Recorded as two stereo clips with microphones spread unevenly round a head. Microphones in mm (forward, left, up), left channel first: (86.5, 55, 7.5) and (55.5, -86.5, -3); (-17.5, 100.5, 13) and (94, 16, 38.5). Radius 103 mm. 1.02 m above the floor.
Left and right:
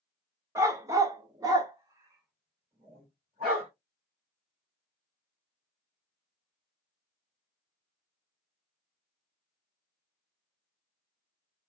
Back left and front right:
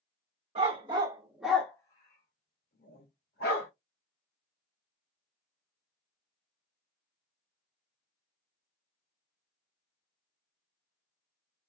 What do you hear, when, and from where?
0.6 s a dog barking: 35° right, 0.8 m; by 3.7 s 170° left, 1.4 m